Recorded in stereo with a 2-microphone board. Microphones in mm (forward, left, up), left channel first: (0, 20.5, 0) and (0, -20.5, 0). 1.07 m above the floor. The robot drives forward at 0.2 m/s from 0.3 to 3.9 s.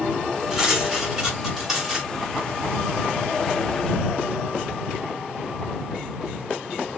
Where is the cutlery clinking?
10° right (ahead or behind), 2 m.